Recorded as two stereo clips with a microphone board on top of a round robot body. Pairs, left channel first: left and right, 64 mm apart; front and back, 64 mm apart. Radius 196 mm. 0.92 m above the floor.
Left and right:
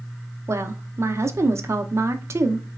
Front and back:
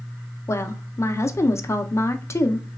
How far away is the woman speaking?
About 0.5 m.